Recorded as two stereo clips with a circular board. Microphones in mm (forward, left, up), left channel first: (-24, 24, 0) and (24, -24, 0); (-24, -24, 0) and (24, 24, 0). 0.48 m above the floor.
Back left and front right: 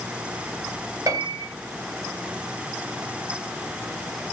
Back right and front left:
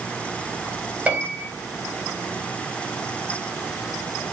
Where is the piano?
25° right, 3 m.